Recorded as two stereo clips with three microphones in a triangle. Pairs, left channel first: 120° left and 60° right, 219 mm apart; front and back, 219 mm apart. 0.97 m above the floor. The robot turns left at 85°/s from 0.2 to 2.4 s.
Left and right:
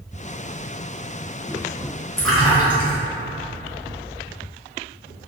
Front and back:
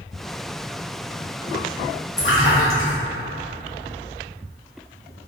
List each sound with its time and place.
2.2 s a splash: 40° left, 0.8 m; by 3.0 s 20° left, 0.8 m